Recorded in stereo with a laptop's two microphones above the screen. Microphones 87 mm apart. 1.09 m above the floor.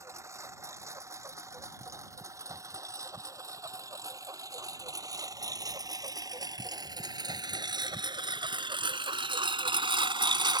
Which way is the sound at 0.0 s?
35° right (ahead or behind).